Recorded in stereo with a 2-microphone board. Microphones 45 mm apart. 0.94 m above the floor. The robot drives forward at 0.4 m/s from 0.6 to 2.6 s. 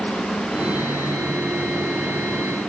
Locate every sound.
Only background noise.